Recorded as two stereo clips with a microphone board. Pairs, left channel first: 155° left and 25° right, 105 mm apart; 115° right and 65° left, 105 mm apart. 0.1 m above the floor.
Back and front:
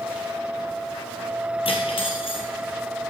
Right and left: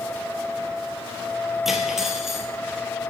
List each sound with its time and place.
1.6 s cutlery clinking: 155° left, 1.3 m